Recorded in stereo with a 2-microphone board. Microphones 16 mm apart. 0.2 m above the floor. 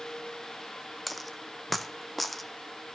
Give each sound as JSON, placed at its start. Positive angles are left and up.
{"t": 1.1, "sound": "a dropped coin", "side_deg": 5, "distance_m": 0.7}